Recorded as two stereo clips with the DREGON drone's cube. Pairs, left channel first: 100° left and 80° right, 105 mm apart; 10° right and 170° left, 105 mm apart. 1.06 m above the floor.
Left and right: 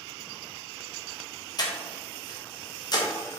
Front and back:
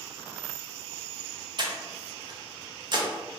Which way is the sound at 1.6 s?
140° left.